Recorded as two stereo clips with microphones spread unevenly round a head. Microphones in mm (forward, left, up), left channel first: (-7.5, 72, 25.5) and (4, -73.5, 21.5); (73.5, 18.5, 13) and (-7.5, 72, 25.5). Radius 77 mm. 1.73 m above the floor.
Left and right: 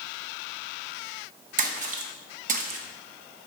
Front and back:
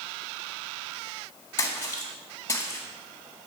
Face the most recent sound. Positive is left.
turn(degrees=-110)